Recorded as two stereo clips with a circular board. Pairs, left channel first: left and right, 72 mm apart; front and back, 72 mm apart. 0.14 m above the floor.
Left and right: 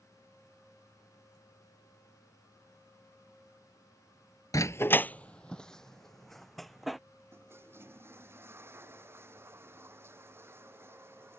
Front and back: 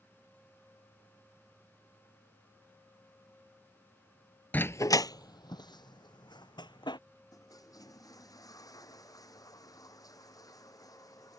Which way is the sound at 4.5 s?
65° left.